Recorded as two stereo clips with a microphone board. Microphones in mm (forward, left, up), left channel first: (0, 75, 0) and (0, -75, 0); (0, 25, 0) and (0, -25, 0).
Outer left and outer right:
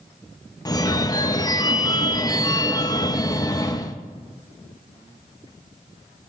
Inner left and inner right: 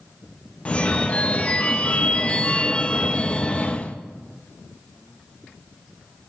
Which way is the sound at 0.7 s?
25° left (ahead or behind).